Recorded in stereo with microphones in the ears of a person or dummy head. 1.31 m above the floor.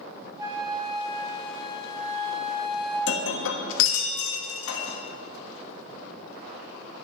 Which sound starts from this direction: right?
A flute, at 0.4 s.